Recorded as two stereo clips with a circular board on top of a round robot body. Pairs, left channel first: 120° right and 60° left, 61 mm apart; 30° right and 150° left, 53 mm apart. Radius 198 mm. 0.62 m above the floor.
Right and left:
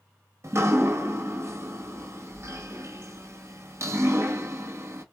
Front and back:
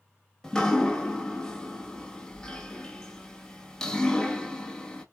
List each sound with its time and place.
0.4 s dripping: 45° left, 1.4 m